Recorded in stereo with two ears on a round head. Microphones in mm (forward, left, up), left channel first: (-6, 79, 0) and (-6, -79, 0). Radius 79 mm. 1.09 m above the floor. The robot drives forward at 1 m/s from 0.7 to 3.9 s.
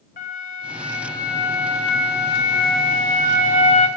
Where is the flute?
50° left (ahead or behind), 2 m; by 3.9 s 40° left (ahead or behind), 2.5 m.